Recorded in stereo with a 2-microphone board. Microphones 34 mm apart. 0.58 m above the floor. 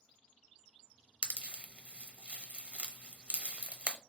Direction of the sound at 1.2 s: 35° right (ahead or behind).